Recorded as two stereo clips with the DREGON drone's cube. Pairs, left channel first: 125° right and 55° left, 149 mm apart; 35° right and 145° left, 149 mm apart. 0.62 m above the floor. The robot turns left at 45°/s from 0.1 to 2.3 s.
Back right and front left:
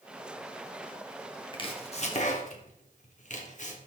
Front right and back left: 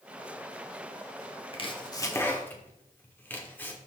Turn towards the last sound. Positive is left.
turn(degrees=-110)